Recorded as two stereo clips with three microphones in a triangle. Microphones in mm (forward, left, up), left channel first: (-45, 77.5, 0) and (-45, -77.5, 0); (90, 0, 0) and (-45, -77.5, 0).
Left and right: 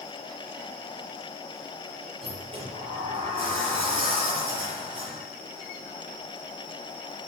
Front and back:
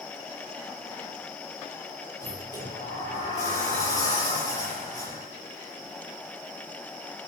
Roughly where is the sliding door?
Ahead right.